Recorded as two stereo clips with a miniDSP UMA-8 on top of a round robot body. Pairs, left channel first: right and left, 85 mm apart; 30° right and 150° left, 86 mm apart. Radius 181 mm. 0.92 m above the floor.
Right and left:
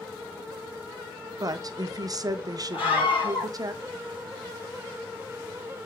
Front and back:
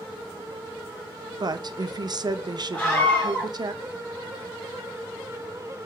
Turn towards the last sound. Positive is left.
turn(degrees=-110)